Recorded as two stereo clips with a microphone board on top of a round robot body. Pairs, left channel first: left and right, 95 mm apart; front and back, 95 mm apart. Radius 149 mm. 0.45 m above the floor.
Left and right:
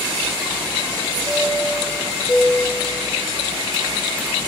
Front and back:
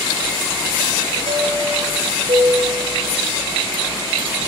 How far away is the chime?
About 2.5 m.